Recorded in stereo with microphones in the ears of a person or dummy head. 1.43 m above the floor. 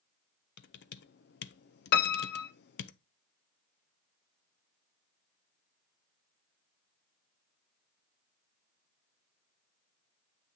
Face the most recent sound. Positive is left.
turn(degrees=55)  # may be behind; listen again after turning